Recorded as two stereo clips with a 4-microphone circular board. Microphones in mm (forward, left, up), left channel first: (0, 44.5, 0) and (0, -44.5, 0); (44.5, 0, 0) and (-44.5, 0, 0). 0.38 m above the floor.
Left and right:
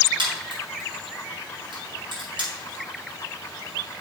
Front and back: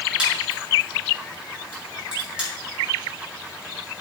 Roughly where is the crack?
Right.